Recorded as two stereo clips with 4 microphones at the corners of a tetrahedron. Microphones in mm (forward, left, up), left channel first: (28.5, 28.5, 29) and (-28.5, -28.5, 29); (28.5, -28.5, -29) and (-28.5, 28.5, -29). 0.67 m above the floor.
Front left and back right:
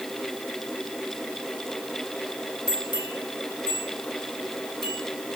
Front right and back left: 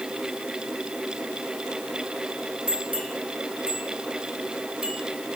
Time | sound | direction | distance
2.7 | a bell | 65° left | 5 m